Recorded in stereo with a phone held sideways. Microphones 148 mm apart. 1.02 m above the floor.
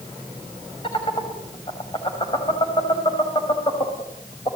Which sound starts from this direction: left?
Laughter, at 0.8 s.